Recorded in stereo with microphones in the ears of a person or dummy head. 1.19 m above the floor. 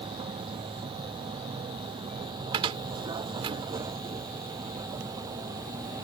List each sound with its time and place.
0.0 s a vehicle: 25° right (ahead or behind); by 6.0 s 20° right (ahead or behind)
2.5 s a cupboard door: 35° right (ahead or behind)